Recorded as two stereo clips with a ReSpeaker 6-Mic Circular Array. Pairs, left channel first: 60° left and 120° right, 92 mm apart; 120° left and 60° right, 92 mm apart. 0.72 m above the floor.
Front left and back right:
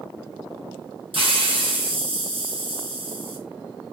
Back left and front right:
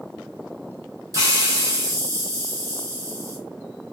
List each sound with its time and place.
1.1 s a hiss: 110° right, 0.8 m